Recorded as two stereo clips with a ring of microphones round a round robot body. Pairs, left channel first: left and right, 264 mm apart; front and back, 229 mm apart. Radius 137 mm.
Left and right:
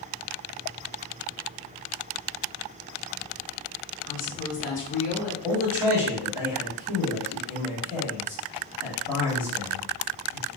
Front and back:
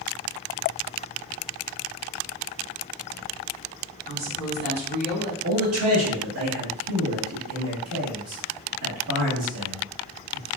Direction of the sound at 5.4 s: 170° right.